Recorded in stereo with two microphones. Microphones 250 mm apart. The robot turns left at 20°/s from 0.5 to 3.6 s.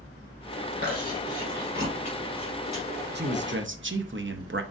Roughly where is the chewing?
Right.